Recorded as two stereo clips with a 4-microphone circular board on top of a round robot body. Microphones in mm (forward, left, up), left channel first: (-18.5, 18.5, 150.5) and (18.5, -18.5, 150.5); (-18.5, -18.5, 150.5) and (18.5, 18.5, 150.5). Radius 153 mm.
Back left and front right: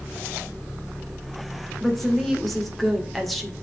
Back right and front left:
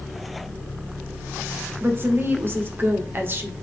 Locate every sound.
1.8 s a woman speaking: 50° left, 1.8 m